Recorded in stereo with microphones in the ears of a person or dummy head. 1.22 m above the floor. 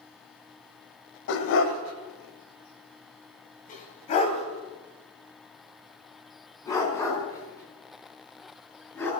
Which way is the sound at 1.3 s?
65° left (ahead or behind).